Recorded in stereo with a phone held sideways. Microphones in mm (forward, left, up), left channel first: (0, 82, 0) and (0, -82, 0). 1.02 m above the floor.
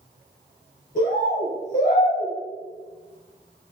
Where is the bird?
55° left (ahead or behind), 2.0 m.